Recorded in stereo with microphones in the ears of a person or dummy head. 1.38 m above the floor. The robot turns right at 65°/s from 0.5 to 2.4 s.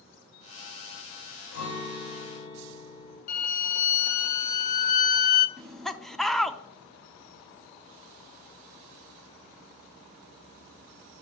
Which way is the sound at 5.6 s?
5° left (ahead or behind).